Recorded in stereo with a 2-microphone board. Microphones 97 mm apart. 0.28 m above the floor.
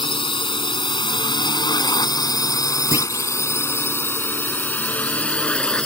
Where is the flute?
I don't hear a flute.